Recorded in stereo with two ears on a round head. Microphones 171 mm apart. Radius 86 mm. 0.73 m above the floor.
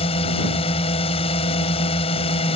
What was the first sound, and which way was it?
A drone, 30° left (ahead or behind).